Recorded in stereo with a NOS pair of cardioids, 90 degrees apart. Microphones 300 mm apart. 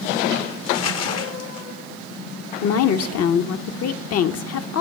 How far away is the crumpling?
About 1.0 m.